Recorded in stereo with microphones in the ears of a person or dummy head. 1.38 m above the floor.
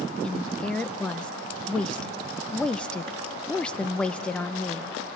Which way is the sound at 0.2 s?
5° left (ahead or behind).